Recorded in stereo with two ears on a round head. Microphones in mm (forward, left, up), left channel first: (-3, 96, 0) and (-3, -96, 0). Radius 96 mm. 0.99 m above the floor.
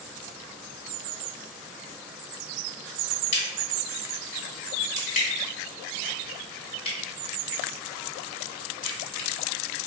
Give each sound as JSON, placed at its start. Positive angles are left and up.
{"t": 3.3, "sound": "a crack", "side_deg": 35, "distance_m": 1.4}